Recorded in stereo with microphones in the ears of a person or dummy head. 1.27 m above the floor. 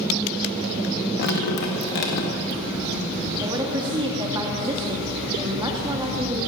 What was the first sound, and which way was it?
Dripping, 60° left (ahead or behind).